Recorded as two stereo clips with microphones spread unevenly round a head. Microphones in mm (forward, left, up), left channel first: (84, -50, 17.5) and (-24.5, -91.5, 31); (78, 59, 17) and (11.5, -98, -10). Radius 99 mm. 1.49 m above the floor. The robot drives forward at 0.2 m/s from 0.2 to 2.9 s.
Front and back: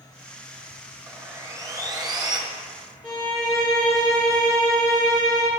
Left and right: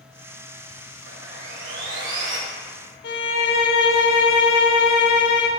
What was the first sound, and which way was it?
Sawing, 95° right.